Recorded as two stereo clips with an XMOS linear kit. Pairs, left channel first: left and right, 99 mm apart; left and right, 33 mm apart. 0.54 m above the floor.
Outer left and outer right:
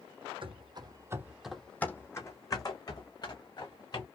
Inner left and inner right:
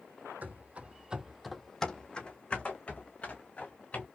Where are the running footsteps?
60° right (ahead or behind), 0.9 m; by 4.1 s 45° left (ahead or behind), 2.5 m.